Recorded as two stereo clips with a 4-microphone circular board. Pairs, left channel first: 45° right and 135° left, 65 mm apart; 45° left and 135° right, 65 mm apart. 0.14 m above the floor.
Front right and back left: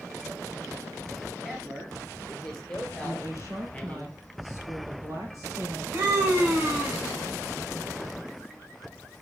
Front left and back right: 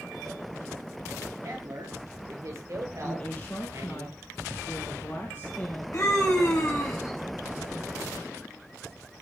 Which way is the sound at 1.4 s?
140° right.